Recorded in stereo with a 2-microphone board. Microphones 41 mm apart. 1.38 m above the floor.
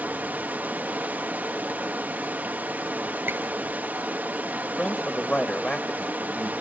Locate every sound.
0.0 s running water: 50° right (ahead or behind), 1.4 m
3.3 s a squeak: 65° right (ahead or behind), 2.5 m
4.6 s a man speaking: 35° left (ahead or behind), 1.5 m